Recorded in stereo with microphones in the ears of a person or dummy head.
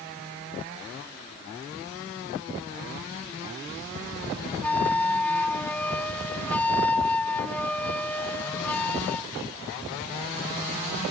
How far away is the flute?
About 0.8 m.